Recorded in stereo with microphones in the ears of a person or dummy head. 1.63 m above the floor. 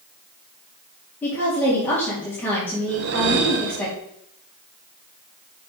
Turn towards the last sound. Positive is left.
turn(degrees=-50)  # may be behind; listen again after turning